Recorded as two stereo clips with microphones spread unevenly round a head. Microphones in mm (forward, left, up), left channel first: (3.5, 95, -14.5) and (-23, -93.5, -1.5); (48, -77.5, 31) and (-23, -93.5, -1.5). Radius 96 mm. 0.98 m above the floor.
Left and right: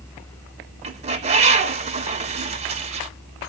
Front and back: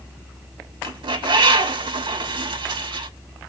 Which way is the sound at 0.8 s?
155° right.